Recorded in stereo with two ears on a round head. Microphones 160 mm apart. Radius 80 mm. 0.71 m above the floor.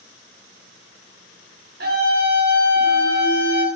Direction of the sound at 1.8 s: 60° right (ahead or behind).